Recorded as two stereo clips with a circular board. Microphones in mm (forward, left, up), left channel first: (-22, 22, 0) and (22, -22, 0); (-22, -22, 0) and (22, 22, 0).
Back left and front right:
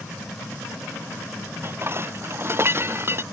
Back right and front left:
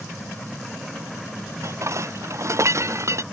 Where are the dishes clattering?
5° left.